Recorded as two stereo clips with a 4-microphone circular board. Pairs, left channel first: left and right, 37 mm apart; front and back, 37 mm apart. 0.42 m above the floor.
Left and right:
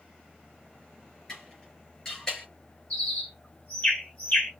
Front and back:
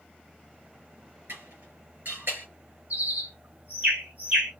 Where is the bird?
135° left, 3.5 m.